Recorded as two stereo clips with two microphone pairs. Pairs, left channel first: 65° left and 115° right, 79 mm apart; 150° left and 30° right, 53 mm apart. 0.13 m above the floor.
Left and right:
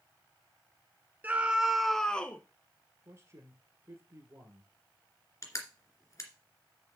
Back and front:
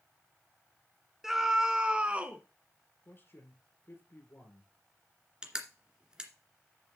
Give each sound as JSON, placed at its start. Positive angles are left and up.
{"t": 1.2, "sound": "a scream", "azimuth_deg": -95, "distance_m": 1.1}
{"t": 3.0, "sound": "a man speaking", "azimuth_deg": -160, "distance_m": 2.5}
{"t": 5.4, "sound": "crushing", "azimuth_deg": 40, "distance_m": 2.0}